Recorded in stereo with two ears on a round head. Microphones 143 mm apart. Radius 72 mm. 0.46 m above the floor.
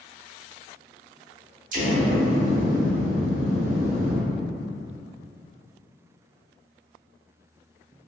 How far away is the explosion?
About 0.6 m.